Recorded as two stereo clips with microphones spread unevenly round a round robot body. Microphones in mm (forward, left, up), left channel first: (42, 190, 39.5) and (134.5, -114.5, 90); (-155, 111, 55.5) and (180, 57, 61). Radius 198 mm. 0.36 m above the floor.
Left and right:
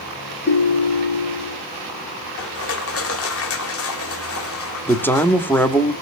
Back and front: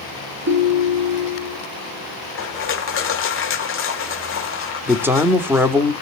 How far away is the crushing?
About 1.4 m.